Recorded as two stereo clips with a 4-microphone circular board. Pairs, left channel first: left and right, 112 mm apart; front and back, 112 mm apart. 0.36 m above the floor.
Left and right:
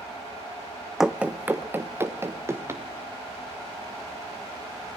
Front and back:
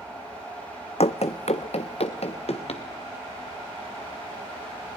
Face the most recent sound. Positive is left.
turn(degrees=-25)